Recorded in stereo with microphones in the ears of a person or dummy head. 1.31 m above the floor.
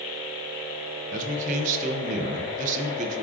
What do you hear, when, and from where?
1.1 s a man speaking: 40° right (ahead or behind), 0.6 m